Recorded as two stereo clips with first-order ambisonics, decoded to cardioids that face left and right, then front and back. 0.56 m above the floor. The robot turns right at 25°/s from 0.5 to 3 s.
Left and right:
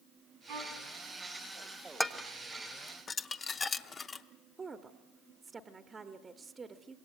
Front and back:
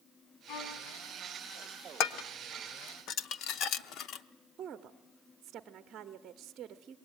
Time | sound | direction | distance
0.5 | a violin | 45° right | 4 m
2.0 | dishes clattering | straight ahead | 0.8 m
4.6 | a woman speaking | 150° right | 0.9 m